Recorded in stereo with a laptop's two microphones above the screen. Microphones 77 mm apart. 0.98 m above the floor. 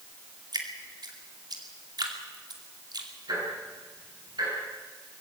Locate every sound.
0.5 s dripping: 60° right (ahead or behind), 2.5 m
3.3 s ticking: 65° right (ahead or behind), 9.5 m